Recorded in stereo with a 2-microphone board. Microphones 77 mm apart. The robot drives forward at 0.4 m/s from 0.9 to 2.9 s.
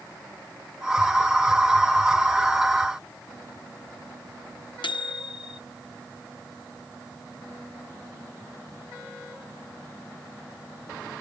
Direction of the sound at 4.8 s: 85° left.